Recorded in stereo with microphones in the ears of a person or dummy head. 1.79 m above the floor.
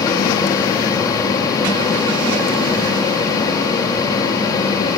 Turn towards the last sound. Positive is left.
turn(degrees=20)  # may be behind; listen again after turning